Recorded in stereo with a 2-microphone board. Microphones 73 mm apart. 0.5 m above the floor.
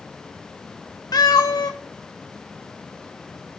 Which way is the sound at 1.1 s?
65° left (ahead or behind).